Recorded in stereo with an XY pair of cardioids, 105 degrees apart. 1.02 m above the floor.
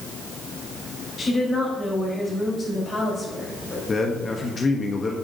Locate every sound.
1.2 s a woman speaking: 40° left, 4.5 m
3.9 s a man speaking: 35° left, 1.1 m